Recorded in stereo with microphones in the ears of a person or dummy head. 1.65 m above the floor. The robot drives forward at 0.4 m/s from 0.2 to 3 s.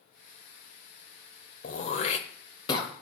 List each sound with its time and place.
1.6 s throat clearing: 40° left (ahead or behind), 0.6 m; by 2.9 s 20° left (ahead or behind), 1.0 m